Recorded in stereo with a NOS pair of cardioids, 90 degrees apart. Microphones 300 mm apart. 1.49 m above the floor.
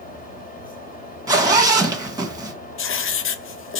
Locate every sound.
0.0 s a fan: 30° left, 2 m
1.3 s a zipper: 10° right, 1.5 m
2.8 s writing: 45° left, 0.6 m